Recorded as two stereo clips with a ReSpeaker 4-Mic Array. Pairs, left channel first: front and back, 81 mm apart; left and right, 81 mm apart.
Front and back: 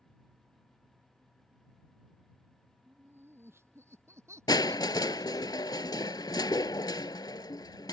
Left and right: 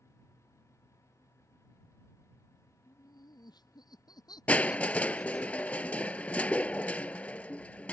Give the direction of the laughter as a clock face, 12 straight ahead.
8 o'clock.